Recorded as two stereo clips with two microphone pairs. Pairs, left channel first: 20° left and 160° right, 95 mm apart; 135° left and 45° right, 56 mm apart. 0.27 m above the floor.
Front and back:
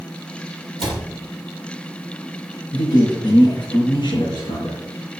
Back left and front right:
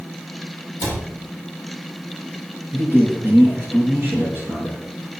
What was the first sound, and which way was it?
A cupboard door, 60° right.